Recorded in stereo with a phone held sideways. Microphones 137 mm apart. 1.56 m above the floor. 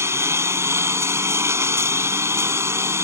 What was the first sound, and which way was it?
A lawn mower, 20° right (ahead or behind).